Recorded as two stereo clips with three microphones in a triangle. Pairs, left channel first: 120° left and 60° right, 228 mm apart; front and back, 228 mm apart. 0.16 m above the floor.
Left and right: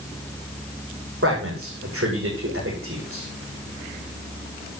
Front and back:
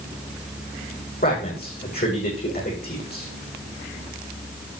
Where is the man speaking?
45° right, 7.5 m.